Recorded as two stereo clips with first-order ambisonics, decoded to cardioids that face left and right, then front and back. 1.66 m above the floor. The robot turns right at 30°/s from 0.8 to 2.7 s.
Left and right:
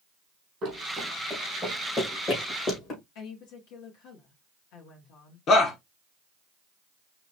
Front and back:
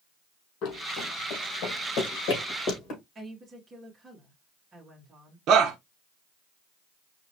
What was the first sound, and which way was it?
Running footsteps, 30° right.